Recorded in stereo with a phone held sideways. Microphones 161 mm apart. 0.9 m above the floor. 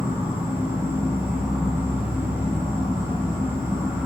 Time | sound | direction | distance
0.0 | an insect | 10° right (ahead or behind) | 1.1 m